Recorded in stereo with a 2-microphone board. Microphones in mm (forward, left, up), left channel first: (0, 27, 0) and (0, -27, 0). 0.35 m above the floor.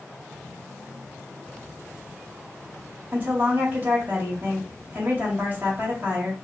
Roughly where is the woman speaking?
Right.